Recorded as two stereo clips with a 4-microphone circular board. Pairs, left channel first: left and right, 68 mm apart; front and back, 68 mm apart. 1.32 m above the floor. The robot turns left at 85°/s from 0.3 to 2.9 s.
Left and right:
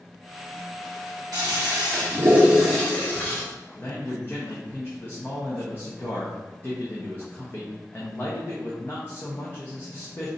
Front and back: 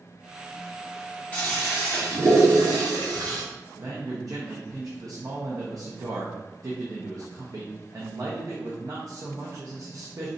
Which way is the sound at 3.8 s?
145° left.